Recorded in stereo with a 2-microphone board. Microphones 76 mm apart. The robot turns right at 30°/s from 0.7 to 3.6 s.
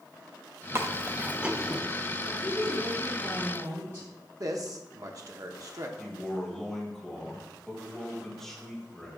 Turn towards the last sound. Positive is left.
turn(degrees=5)  # may be behind; listen again after turning